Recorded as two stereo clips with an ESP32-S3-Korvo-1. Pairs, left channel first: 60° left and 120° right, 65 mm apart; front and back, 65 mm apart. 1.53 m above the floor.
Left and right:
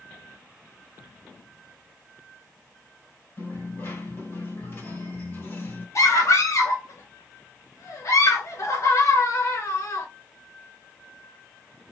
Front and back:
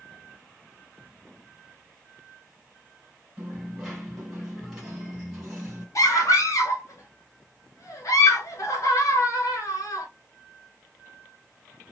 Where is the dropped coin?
95° left, 2 m.